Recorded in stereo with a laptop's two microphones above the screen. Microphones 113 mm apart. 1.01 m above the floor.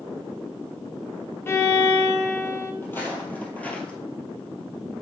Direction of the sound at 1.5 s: 20° left (ahead or behind).